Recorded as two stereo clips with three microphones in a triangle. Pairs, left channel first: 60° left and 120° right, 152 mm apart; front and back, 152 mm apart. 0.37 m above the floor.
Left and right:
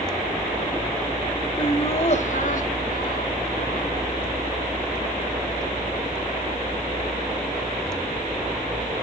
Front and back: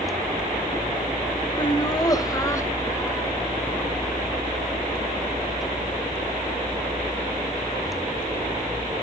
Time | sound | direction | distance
1.6 | laughter | 35° left | 1.0 m